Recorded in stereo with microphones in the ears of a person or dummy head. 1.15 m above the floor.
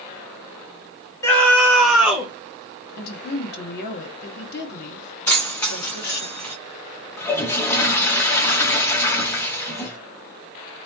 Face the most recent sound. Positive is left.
turn(degrees=15)  # may be behind; listen again after turning